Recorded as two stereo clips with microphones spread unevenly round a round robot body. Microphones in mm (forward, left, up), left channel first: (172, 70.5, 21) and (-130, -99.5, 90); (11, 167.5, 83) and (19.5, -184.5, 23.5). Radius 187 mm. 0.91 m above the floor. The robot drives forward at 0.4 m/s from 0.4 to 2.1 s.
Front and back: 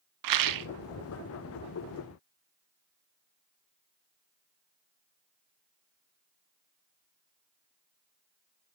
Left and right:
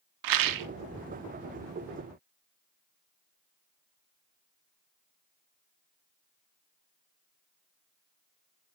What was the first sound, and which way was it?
A rattle, 120° right.